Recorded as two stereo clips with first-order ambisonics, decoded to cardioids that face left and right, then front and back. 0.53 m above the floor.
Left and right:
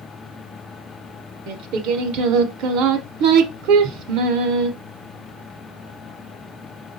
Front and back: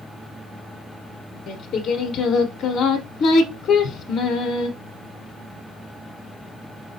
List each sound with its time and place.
1.5 s singing: 60° right, 1.0 m